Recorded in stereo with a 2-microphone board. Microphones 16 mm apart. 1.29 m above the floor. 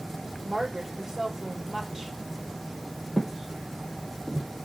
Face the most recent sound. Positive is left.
turn(degrees=-5)  # may be behind; listen again after turning